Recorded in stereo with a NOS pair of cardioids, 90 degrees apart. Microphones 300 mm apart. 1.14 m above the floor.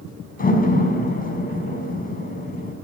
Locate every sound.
0.4 s a door slam: 30° left, 6 m